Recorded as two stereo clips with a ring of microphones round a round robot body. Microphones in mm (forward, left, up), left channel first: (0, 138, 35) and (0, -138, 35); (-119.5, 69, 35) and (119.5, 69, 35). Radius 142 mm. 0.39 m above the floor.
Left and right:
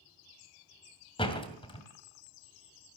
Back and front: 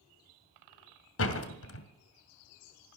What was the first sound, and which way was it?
A door slam, 160° left.